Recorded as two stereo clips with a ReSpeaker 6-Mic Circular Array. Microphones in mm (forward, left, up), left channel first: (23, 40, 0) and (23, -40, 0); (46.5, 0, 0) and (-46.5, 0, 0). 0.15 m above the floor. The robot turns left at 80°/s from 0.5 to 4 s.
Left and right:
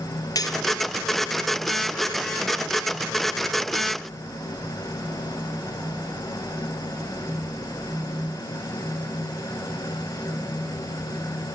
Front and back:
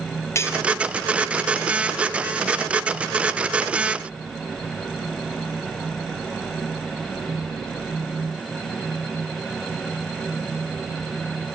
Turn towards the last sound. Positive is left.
turn(degrees=135)